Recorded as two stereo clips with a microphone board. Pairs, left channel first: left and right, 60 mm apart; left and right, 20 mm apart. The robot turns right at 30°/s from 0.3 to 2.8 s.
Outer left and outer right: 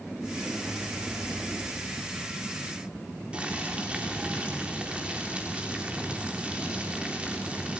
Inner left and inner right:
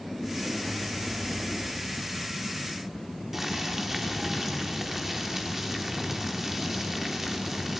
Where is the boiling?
20° right (ahead or behind), 3.5 m.